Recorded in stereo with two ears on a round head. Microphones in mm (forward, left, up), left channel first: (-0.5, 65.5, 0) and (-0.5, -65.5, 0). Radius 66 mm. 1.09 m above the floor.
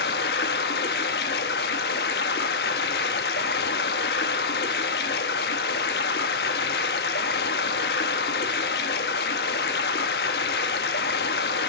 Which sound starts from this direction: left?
Running water, at 0.0 s.